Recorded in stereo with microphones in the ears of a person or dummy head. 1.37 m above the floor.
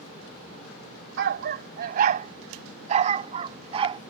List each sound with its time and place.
1.2 s a dog barking: 60° right (ahead or behind); by 4.0 s 30° right (ahead or behind)